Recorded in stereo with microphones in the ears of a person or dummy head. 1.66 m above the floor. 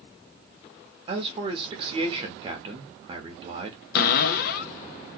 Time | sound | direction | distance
1.1 | a man speaking | 25° right (ahead or behind) | 0.8 m
4.0 | a cupboard door | 70° left (ahead or behind) | 0.6 m